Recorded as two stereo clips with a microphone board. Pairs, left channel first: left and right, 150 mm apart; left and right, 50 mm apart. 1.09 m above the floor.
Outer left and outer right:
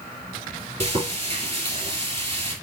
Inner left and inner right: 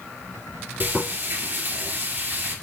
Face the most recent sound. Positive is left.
turn(degrees=-45)  # may be behind; listen again after turning